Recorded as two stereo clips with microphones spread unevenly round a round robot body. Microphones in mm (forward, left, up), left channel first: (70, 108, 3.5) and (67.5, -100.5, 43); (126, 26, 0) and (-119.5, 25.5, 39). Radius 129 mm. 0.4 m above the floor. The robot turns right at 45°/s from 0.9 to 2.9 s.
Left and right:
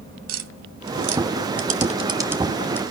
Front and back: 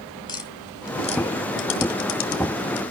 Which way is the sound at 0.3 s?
70° right.